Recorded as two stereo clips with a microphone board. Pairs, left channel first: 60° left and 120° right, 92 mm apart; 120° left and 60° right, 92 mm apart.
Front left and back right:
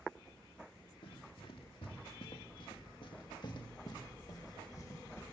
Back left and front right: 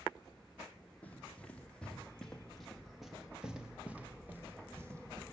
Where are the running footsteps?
45° left, 4 m; by 5.2 s straight ahead, 2.5 m.